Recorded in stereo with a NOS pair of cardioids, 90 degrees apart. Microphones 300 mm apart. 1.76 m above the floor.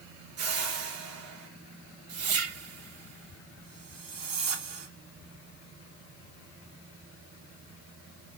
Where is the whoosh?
50° right, 1.2 m.